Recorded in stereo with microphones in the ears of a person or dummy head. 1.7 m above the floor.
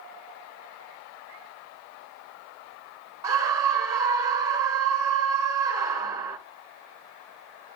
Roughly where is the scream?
Right.